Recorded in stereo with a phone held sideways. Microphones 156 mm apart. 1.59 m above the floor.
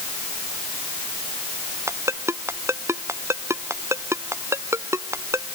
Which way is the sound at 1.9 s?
15° right (ahead or behind).